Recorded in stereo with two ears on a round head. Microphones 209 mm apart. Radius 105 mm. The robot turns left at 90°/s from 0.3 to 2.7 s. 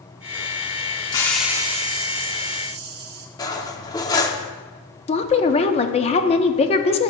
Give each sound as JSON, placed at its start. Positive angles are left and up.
{"t": 1.1, "sound": "a hiss", "azimuth_deg": 25, "distance_m": 1.1}
{"t": 3.4, "sound": "cutlery clinking", "side_deg": 15, "distance_m": 0.6}
{"t": 5.1, "sound": "a woman speaking", "side_deg": 25, "distance_m": 0.6}